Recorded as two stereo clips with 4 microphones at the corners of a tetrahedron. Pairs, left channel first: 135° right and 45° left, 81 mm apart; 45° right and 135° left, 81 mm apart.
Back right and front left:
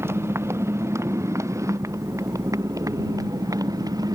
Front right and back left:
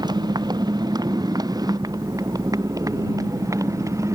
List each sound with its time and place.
0.0 s a motorcycle: 105° left; by 4.2 s 85° left